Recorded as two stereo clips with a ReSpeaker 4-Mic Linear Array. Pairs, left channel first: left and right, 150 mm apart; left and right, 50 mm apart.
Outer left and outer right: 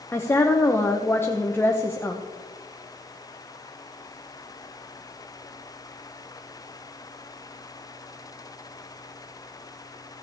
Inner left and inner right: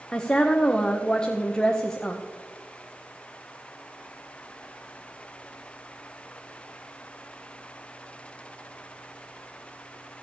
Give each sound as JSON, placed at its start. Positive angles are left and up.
{"t": 0.1, "sound": "a woman speaking", "side_deg": 15, "distance_m": 0.8}